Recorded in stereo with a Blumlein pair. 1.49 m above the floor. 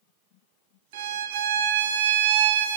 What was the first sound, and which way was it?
A violin, 55° right.